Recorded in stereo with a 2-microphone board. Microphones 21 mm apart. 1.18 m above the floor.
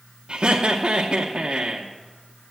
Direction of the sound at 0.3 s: 45° right (ahead or behind).